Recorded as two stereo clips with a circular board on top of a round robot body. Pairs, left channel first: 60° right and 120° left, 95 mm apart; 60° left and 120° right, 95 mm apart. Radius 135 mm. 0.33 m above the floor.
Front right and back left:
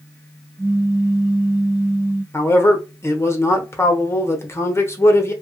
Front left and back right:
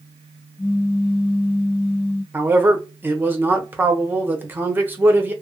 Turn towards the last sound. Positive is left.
turn(degrees=-75)